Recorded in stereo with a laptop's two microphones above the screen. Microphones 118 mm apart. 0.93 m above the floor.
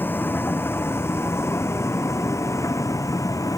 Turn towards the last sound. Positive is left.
turn(degrees=30)  # may be behind; listen again after turning